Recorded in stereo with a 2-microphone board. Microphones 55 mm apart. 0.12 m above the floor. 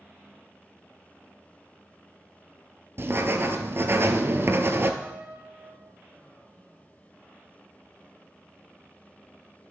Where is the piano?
30° right (ahead or behind), 2.5 m.